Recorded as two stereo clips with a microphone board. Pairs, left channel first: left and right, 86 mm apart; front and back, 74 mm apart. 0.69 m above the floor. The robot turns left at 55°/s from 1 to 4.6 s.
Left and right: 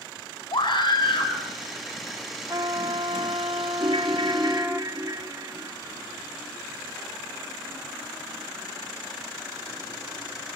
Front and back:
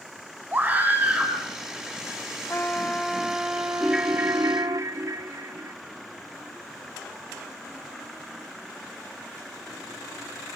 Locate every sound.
0.5 s a scream: 115° left, 5.5 m; by 1.3 s 95° left, 5.5 m
2.5 s a trumpet: 55° right, 0.8 m; by 4.8 s 170° right, 0.8 m
3.8 s a ringtone: 90° right, 1.0 m; by 5.7 s 135° right, 1.0 m